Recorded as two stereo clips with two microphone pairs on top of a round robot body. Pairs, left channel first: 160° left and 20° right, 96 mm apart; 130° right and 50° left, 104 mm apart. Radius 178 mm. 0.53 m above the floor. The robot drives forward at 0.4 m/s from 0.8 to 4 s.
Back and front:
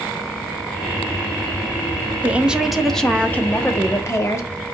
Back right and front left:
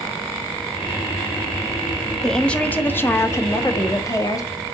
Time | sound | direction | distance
2.2 | a woman speaking | 80° right | 0.8 m